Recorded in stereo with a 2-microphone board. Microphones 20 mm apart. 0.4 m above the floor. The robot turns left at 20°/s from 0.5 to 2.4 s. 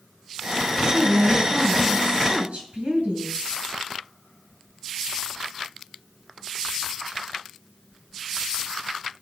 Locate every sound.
0.9 s a woman speaking: 65° right (ahead or behind), 3.5 m; by 3.5 s 75° right (ahead or behind), 3.5 m